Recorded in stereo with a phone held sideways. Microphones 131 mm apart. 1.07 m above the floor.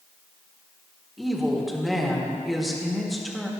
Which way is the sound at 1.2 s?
Centre (ahead or behind).